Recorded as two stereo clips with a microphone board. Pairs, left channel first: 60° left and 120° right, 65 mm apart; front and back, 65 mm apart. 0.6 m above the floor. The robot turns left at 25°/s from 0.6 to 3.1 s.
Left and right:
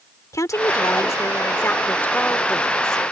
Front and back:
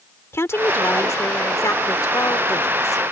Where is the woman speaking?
40° left; by 3.0 s 20° right.